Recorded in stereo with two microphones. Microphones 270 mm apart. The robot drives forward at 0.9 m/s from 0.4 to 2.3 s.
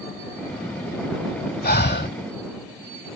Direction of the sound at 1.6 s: 35° left (ahead or behind).